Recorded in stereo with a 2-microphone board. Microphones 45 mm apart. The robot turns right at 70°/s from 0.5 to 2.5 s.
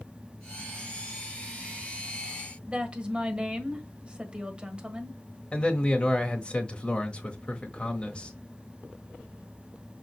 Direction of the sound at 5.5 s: 25° left (ahead or behind).